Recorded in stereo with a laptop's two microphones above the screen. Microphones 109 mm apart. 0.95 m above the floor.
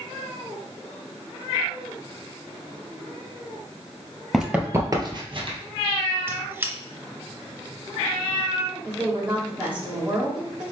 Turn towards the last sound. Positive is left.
turn(degrees=-10)  # may be behind; listen again after turning